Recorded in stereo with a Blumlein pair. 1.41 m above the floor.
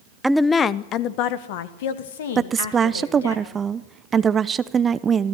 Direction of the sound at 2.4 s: 20° right.